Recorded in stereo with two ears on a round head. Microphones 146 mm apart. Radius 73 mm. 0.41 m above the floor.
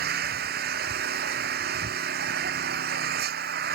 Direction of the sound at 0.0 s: 60° right (ahead or behind).